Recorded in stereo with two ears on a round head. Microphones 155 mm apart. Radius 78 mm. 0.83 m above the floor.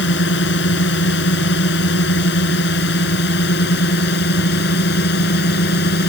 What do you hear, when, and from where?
0.0 s a drone: 65° left (ahead or behind); by 6.1 s 60° left (ahead or behind)